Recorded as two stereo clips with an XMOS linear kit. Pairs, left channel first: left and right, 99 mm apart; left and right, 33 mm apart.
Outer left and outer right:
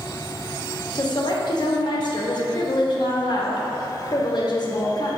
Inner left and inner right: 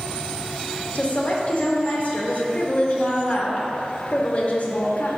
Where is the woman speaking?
50° left (ahead or behind), 0.7 m.